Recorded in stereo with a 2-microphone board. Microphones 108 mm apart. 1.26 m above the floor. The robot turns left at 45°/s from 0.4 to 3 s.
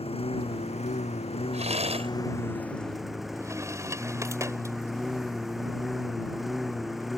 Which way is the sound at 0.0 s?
115° left.